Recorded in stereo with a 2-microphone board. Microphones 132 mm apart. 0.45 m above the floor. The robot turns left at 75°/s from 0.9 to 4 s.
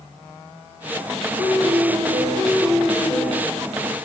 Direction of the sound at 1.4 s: 50° right.